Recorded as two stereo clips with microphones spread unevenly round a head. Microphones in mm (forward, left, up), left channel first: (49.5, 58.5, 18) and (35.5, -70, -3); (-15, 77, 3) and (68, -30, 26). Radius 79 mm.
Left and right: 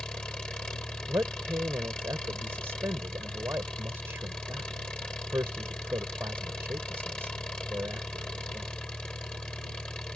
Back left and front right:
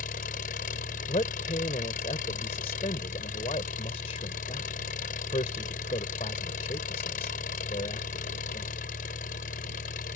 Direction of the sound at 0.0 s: 170° left.